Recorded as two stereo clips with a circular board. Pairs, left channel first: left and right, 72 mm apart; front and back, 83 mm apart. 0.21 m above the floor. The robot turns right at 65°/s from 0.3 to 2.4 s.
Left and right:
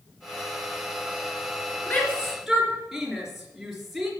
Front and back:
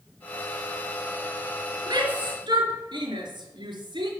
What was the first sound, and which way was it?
A shout, 150° left.